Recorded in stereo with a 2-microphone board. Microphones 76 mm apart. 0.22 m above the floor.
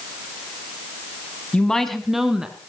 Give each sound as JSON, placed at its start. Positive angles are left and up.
{"t": 1.5, "sound": "a woman speaking", "side_deg": 15, "distance_m": 1.5}